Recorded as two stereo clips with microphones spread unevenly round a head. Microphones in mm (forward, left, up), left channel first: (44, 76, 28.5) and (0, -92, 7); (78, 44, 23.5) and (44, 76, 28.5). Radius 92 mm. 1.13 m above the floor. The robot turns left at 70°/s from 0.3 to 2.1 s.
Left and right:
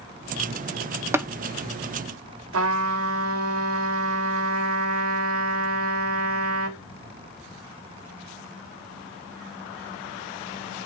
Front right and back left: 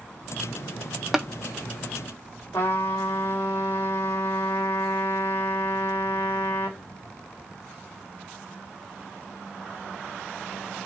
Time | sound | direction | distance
1.1 | tapping | 140° right | 0.7 m
2.5 | a trumpet | 115° right | 1.3 m